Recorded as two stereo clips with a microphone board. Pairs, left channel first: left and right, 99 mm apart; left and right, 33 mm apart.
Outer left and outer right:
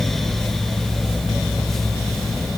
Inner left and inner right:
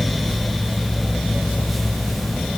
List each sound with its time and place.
Only background noise.